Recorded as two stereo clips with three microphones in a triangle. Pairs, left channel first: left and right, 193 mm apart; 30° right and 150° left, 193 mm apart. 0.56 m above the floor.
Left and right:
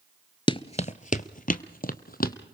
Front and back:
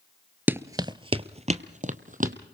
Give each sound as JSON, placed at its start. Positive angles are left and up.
{"t": 0.5, "sound": "running footsteps", "azimuth_deg": 85, "distance_m": 0.5}